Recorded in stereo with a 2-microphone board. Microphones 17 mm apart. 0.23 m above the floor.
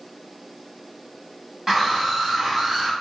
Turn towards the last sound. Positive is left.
turn(degrees=-45)  # may be behind; listen again after turning